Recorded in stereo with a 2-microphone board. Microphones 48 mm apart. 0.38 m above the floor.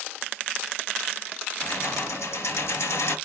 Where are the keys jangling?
70° left (ahead or behind), 3.5 m.